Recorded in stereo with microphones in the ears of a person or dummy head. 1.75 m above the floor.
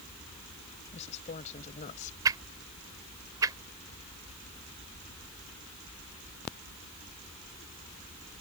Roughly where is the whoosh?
Right.